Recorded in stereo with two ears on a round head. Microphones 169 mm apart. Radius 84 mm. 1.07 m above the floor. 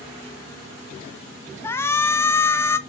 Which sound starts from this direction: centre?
A shout, at 1.6 s.